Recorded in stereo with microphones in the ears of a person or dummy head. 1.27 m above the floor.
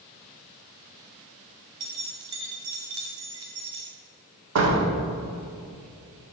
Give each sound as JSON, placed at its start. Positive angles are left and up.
{"t": 1.8, "sound": "keys jangling", "side_deg": -25, "distance_m": 0.9}
{"t": 4.5, "sound": "a door slam", "side_deg": -80, "distance_m": 1.9}